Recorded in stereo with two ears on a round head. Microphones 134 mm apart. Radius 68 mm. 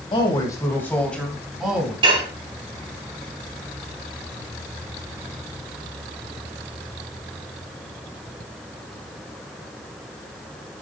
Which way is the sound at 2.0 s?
35° right (ahead or behind).